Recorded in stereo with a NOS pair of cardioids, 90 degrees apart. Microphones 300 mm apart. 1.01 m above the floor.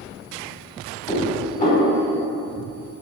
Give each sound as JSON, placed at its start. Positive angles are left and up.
{"t": 1.1, "sound": "dishes clattering", "azimuth_deg": 25, "distance_m": 1.8}